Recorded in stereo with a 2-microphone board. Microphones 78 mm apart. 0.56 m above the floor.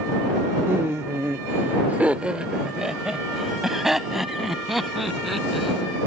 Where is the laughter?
35° right (ahead or behind); by 6.0 s centre (ahead or behind).